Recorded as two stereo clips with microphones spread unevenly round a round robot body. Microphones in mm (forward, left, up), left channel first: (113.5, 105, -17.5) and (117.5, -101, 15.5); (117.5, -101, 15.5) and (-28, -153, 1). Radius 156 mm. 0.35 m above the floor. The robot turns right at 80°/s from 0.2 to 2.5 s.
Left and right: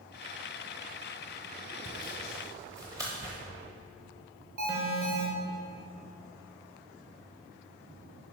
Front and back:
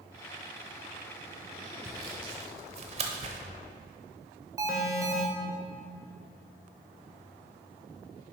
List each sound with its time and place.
1.8 s sawing: 135° left, 0.7 m; by 3.4 s 170° right, 0.7 m
4.6 s an alarm: 115° right, 1.3 m